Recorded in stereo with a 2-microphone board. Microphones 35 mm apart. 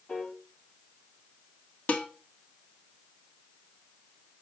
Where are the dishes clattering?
40° left (ahead or behind), 1.3 m.